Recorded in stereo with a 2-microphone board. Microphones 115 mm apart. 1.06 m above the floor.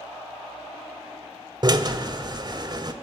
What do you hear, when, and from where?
1.6 s a drill: 40° right (ahead or behind), 1.9 m